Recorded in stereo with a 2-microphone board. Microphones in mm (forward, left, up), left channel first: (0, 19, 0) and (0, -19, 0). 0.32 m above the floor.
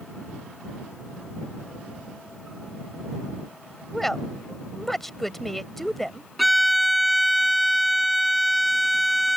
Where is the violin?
Centre (ahead or behind).